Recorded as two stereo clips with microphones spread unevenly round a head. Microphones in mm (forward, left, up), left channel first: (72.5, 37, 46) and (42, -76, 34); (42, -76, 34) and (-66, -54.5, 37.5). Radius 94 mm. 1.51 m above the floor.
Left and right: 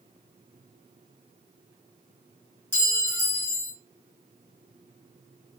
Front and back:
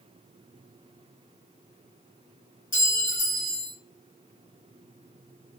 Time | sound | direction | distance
2.7 | a clink | 5° left | 1.5 m